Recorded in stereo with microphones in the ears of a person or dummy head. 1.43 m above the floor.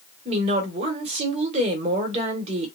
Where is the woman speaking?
35° right (ahead or behind), 1.1 m.